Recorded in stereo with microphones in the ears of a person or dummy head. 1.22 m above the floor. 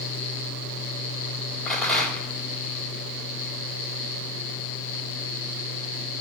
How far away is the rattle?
About 3 m.